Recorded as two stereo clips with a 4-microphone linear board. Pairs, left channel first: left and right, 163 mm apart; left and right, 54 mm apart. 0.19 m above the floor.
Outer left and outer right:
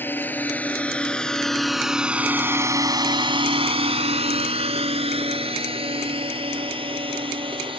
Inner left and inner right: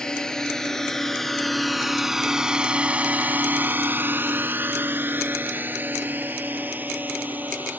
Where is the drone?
10° left (ahead or behind); by 7.8 s 30° right (ahead or behind).